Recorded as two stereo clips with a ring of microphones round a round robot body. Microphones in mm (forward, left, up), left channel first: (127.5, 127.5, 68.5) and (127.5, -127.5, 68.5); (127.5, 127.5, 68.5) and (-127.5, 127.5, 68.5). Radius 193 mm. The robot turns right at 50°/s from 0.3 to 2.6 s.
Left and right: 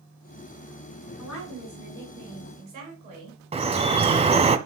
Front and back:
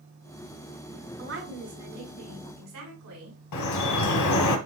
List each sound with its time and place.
1.2 s a woman speaking: 130° left, 6 m; by 3.4 s 160° right, 6 m
3.5 s dripping: 20° right, 1.1 m